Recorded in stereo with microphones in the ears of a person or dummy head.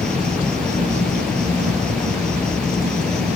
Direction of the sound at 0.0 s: Centre (ahead or behind).